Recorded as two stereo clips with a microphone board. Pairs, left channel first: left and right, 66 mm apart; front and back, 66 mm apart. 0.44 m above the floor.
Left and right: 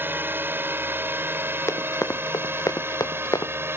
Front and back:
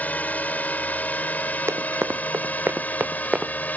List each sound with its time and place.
0.0 s a drone: 55° right
1.7 s running footsteps: 135° left; by 3.5 s 105° left